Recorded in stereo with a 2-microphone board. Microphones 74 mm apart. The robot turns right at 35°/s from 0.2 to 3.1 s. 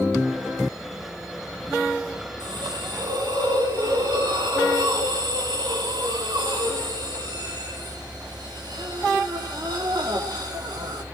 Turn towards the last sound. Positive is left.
turn(degrees=-70)  # may be behind; listen again after turning